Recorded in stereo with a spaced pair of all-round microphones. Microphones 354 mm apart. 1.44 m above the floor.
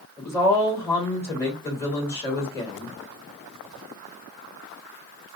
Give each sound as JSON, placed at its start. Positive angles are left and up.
{"t": 0.2, "sound": "a woman speaking", "side_deg": 10, "distance_m": 2.5}